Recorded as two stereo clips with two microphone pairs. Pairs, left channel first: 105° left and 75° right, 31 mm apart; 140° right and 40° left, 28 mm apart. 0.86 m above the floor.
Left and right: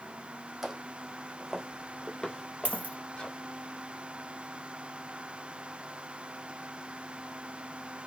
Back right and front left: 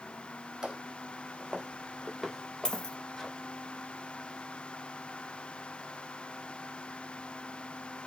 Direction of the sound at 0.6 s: 5° right.